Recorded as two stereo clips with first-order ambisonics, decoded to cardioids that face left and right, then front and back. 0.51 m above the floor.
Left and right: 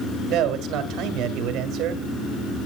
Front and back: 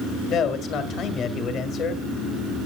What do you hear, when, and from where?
0.3 s a man speaking: 50° right, 1.9 m